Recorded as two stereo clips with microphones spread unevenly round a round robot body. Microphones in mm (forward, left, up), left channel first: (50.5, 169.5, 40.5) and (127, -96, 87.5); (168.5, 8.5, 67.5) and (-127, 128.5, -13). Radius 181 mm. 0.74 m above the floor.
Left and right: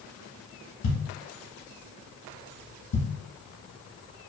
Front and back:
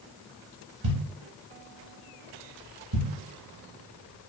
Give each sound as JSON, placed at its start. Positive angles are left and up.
{"t": 0.8, "sound": "a thud", "azimuth_deg": 140, "distance_m": 0.9}